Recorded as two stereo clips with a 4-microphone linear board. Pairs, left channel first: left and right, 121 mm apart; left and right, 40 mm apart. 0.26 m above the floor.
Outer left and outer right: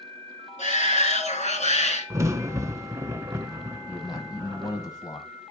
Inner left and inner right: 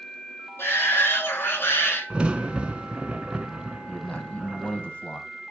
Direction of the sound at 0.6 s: 70° left (ahead or behind).